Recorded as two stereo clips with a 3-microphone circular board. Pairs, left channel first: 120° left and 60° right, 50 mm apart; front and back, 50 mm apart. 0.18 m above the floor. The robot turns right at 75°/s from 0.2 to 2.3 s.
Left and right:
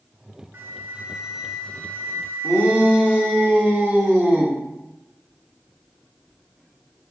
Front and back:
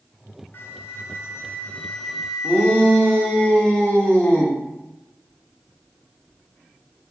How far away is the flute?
About 0.6 m.